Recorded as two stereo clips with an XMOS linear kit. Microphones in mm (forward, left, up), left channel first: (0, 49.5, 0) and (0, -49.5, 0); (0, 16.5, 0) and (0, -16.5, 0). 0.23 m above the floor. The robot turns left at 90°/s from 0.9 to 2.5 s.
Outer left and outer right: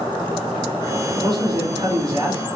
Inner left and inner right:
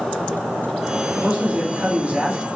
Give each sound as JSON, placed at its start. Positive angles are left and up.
{"t": 1.1, "sound": "a man speaking", "azimuth_deg": -40, "distance_m": 2.0}